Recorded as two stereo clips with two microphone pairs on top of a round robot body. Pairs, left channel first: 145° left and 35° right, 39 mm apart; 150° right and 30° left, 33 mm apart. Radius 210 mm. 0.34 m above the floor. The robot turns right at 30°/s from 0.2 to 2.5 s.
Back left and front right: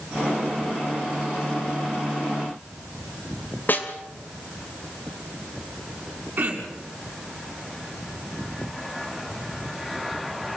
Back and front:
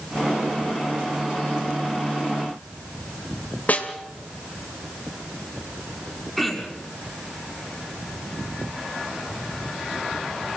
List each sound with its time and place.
3.7 s a snare drum: 175° left, 2.5 m
6.4 s throat clearing: 70° right, 5 m